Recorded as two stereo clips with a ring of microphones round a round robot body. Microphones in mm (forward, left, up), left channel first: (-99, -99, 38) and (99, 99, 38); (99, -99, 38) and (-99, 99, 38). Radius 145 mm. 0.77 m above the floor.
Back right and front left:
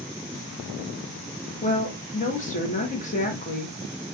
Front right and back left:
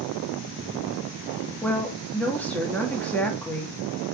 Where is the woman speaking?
125° right, 1.0 m.